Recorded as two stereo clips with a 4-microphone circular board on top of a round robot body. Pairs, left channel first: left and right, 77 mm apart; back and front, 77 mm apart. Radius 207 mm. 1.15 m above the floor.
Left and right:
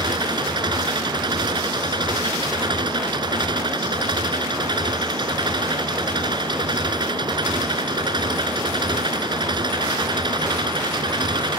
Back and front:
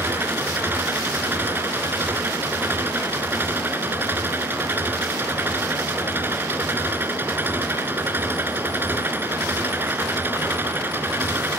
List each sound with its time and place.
0.0 s an engine running: 65° right